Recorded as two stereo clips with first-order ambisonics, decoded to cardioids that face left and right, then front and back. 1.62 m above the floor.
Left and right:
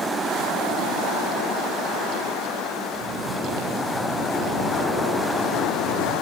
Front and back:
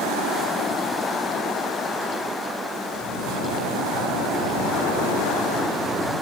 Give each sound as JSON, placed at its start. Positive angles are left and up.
{"t": 3.0, "sound": "snoring", "azimuth_deg": -130, "distance_m": 9.0}